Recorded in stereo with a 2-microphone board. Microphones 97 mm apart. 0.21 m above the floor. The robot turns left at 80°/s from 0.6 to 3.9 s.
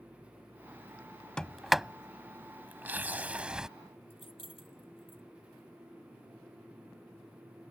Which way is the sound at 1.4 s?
10° left (ahead or behind).